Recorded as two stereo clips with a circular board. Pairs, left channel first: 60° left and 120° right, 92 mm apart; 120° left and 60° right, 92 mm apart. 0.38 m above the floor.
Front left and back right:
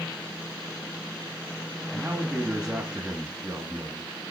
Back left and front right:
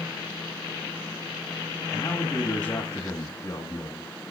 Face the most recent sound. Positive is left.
turn(degrees=165)